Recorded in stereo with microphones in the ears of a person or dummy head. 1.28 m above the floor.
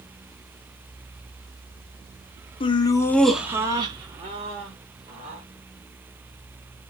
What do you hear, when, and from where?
2.6 s laughter: 25° left (ahead or behind), 0.6 m; by 5.4 s 35° right (ahead or behind), 1.4 m